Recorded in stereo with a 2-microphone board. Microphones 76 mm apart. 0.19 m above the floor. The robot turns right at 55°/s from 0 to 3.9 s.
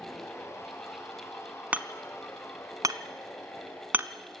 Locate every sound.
1.7 s hammering: 20° right (ahead or behind), 0.7 m; by 4.1 s 25° right (ahead or behind), 0.7 m